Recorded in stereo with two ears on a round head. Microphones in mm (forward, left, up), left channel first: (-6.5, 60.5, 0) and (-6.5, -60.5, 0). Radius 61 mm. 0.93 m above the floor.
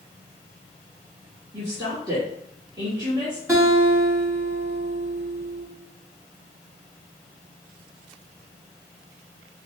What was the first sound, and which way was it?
A woman speaking, 25° right (ahead or behind).